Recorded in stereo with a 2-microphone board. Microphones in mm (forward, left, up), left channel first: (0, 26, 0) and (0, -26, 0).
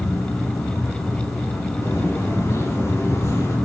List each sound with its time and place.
0.0 s an insect: 80° left, 4 m
1.8 s footsteps: 65° left (ahead or behind), 9 m; by 3.6 s 75° left (ahead or behind), 11 m